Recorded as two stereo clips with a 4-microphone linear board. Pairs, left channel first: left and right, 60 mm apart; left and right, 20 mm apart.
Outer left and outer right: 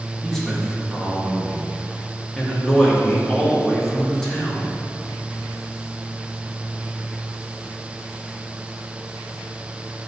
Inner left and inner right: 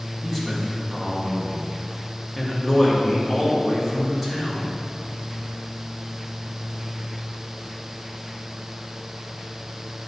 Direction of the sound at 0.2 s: 10° left (ahead or behind).